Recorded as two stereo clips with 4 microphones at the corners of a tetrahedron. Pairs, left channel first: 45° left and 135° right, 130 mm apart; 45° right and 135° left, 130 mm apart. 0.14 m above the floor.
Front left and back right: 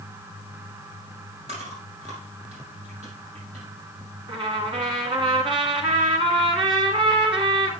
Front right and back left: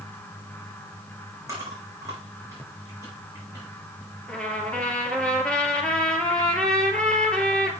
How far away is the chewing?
About 6 m.